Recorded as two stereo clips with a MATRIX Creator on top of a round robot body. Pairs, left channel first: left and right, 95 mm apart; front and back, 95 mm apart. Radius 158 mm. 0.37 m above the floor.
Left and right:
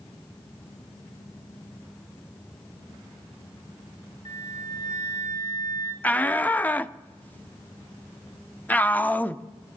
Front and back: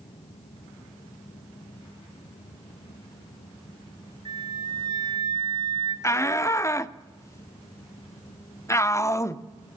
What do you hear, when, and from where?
4.2 s a flute: 140° left, 3 m
6.0 s a shout: 30° left, 0.9 m